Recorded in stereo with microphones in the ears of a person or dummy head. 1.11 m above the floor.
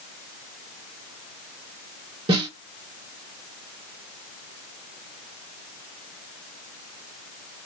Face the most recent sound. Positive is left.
turn(degrees=-25)  # may be behind; listen again after turning